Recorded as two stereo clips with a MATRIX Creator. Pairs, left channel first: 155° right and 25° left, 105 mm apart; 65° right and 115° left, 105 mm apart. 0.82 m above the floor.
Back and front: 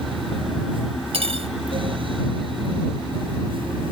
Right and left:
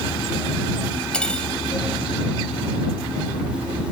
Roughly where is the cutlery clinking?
Ahead.